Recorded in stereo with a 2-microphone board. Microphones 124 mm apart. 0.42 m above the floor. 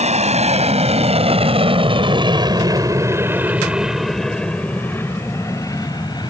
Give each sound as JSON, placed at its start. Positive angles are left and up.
{"t": 0.0, "sound": "an aircraft", "side_deg": -65}